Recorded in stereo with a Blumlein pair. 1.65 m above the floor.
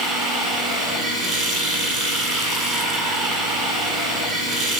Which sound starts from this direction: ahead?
Running water, at 0.0 s.